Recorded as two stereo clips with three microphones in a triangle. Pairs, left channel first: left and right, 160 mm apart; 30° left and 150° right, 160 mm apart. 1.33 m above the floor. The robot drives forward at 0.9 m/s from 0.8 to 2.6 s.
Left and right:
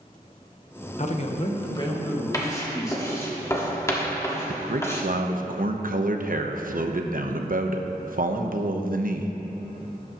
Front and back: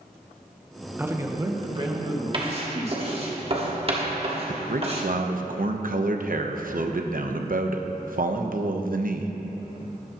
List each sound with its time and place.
1.0 s a man speaking: 135° left, 1.0 m; by 3.3 s 160° left, 2.5 m
2.3 s writing: 160° left, 1.3 m
4.5 s a man speaking: 120° right, 0.9 m